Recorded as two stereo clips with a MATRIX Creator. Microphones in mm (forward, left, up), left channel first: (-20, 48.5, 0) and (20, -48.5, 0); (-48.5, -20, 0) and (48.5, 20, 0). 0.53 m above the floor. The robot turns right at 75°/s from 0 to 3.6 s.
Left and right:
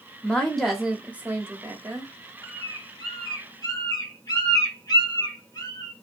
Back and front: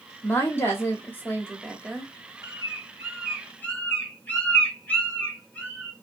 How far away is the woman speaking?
About 0.7 m.